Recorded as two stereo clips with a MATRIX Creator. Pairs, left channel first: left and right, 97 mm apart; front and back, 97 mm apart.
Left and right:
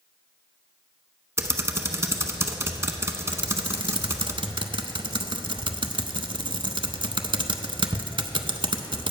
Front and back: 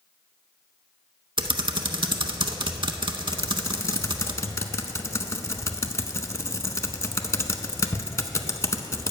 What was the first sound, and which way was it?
Typing on a keyboard, 150° right.